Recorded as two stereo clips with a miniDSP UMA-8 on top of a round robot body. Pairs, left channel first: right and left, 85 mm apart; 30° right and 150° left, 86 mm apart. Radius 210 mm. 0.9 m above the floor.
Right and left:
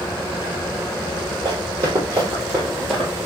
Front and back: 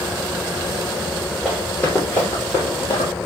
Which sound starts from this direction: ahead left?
Running footsteps, at 1.4 s.